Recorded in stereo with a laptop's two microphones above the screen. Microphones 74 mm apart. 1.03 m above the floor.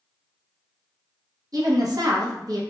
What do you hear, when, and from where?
1.5 s a woman speaking: 55° right (ahead or behind), 0.7 m